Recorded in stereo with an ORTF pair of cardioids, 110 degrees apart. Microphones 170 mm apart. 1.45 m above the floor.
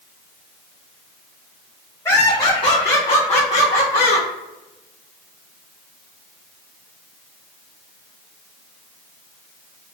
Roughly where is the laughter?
Ahead.